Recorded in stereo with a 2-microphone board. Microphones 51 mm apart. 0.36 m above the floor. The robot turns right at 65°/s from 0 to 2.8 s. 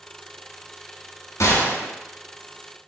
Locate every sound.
1.4 s a gunshot: 95° left, 1.2 m; by 1.9 s 125° left, 1.2 m